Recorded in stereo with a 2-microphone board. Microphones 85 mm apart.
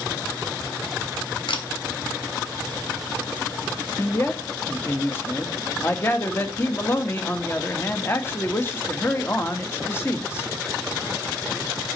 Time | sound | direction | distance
1.5 | a camera shutter | 85° left | 1.9 m
4.0 | a man speaking | 30° left (ahead or behind) | 1.4 m